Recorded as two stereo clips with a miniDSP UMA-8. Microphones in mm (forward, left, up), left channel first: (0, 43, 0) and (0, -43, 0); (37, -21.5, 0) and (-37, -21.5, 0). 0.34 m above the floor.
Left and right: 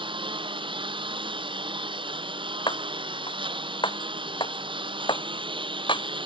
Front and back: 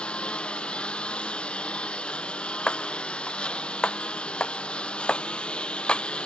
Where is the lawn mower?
75° right.